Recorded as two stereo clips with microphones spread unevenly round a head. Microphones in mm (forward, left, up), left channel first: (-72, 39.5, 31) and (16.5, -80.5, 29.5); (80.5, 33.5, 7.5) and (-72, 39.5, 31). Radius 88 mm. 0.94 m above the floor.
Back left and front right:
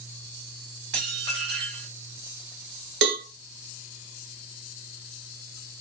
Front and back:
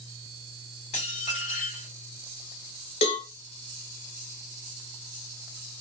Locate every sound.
0.9 s dishes clattering: 55° right, 1.5 m
3.0 s a cowbell: 65° right, 0.9 m